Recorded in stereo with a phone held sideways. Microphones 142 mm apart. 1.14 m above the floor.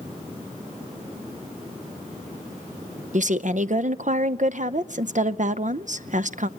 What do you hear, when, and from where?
3.1 s a woman speaking: 55° right (ahead or behind), 0.7 m